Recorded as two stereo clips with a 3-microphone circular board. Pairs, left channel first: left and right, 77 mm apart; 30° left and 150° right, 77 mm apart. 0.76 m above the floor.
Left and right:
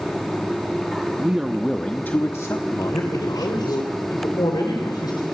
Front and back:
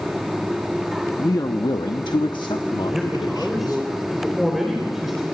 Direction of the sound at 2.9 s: 125° left.